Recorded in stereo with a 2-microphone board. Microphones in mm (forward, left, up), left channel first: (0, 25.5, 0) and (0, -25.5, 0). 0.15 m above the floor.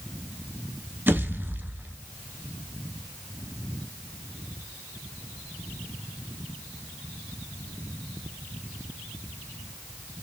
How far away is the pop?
About 0.9 m.